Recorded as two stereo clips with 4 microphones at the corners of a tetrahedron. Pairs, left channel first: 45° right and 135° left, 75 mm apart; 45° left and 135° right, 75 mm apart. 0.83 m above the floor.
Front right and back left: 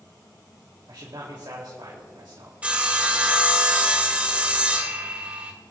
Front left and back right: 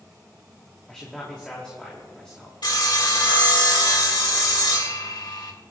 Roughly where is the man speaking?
Behind left.